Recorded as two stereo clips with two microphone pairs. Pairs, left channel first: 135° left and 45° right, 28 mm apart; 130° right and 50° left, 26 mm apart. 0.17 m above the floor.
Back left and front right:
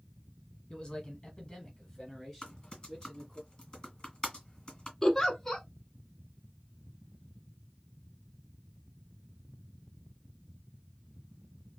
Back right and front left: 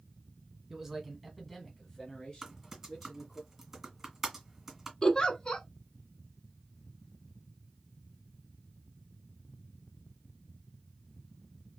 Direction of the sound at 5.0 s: 155° right.